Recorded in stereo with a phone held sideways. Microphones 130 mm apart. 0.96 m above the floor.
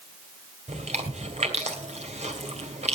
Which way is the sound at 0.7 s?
60° right (ahead or behind).